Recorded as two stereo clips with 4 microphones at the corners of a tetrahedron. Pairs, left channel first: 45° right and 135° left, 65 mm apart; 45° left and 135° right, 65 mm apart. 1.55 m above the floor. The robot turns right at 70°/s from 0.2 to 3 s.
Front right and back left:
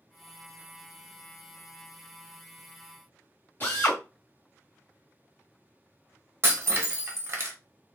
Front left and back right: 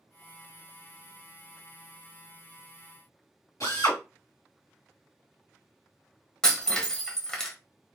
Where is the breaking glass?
120° left, 0.8 m.